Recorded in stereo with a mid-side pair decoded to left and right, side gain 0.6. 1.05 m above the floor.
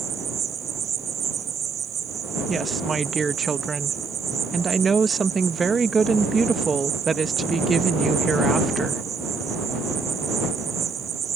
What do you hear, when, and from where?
0.0 s an insect: 40° right
2.5 s a woman speaking: 25° right